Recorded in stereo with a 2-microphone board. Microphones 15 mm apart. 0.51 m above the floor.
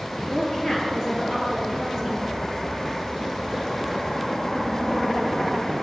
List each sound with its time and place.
0.3 s a woman speaking: 50° left (ahead or behind), 8 m; by 2.2 s 40° left (ahead or behind), 8 m